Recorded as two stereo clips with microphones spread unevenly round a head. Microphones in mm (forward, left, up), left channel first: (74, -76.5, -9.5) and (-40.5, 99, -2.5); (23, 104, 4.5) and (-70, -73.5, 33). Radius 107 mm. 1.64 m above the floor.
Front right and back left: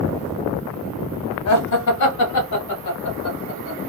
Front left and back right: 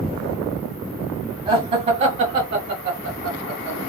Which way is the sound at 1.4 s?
45° right.